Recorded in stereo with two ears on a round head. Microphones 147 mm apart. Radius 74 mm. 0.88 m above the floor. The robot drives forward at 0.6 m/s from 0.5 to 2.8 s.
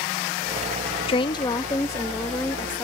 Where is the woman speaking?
35° left (ahead or behind); by 2.8 s 15° left (ahead or behind).